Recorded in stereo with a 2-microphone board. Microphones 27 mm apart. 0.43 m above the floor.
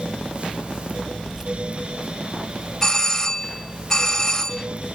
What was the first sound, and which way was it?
Keys jangling, 10° right (ahead or behind).